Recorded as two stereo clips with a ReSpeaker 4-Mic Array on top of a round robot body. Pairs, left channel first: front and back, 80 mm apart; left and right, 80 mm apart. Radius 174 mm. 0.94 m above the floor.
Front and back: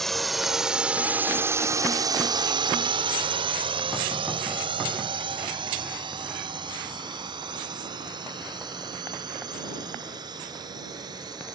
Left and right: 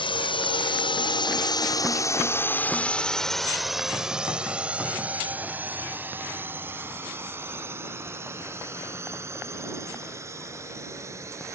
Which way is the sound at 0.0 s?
85° left.